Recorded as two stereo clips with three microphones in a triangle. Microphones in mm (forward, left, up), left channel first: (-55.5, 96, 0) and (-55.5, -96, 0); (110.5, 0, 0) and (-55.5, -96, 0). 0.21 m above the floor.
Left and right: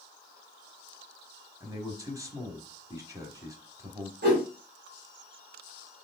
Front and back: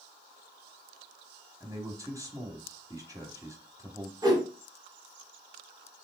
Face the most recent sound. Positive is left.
turn(degrees=-80)